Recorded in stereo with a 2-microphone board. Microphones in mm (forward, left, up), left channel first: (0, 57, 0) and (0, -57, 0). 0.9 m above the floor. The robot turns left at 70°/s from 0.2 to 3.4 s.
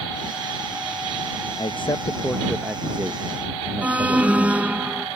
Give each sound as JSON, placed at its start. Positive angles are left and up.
{"t": 1.6, "sound": "a man speaking", "side_deg": 50}
{"t": 3.8, "sound": "an alarm", "side_deg": -10}